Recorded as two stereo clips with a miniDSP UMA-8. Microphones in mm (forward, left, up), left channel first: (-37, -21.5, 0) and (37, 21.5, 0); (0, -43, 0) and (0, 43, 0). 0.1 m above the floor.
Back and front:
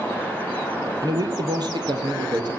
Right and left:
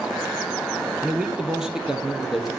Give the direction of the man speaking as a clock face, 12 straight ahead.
12 o'clock.